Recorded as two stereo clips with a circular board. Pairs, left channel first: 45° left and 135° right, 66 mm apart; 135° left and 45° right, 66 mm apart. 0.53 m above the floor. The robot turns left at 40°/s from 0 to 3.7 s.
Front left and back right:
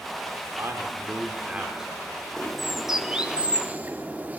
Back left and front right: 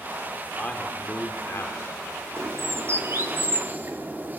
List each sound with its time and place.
0.6 s a man speaking: 160° right, 1.1 m; by 1.9 s 145° left, 1.1 m
2.4 s a bird: 35° right, 0.5 m; by 4.4 s 85° right, 0.5 m